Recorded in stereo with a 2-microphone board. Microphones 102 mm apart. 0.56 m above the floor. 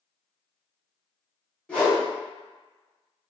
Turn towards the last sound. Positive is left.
turn(degrees=10)  # may be behind; listen again after turning